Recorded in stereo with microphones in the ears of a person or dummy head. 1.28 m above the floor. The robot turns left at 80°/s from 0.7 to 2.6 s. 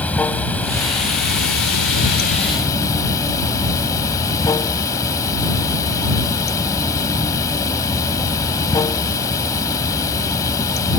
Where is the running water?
165° left; by 11.0 s 15° left.